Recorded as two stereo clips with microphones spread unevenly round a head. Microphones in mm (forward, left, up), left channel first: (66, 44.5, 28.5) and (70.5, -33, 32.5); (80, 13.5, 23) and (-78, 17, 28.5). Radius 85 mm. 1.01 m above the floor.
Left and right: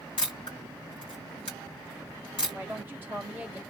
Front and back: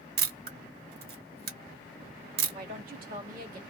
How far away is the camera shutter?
About 1.2 m.